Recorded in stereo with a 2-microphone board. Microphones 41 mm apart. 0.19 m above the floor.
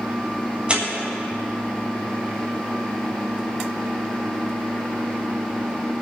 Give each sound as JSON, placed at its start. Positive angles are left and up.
{"t": 0.7, "sound": "tearing paper", "side_deg": -25, "distance_m": 1.8}